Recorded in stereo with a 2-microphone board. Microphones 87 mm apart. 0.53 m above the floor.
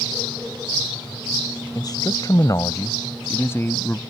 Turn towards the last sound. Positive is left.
turn(degrees=25)  # may be behind; listen again after turning